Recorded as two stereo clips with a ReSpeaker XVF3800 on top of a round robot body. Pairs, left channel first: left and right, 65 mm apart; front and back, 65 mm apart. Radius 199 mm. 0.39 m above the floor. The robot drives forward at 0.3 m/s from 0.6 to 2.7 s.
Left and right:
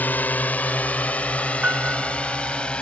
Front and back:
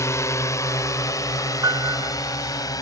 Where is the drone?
30° left; by 2.8 s 20° left.